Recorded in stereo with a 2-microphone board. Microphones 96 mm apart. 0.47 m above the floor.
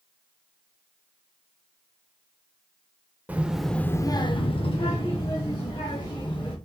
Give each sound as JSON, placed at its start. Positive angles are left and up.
{"t": 3.3, "sound": "a child speaking", "side_deg": -15, "distance_m": 0.8}